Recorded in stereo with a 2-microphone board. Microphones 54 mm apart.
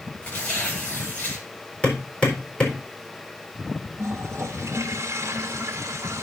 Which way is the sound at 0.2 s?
35° left (ahead or behind).